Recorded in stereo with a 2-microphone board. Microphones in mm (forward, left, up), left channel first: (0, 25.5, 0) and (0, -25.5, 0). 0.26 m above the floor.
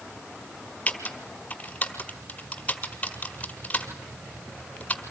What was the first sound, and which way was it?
Typing on a keyboard, 25° left (ahead or behind).